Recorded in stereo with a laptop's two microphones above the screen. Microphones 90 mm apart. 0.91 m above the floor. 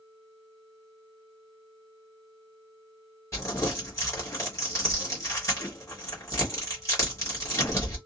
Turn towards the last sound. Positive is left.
turn(degrees=30)  # may be behind; listen again after turning